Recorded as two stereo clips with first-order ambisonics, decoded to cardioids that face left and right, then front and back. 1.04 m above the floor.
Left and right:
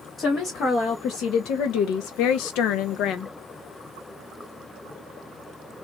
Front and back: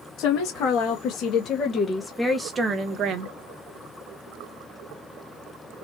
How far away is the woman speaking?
About 1.8 m.